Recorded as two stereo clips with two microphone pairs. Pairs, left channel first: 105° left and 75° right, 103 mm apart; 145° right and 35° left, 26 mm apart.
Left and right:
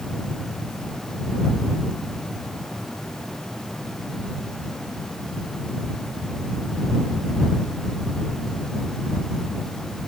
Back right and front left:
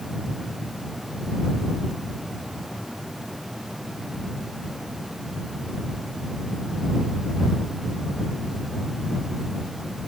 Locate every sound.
Only background noise.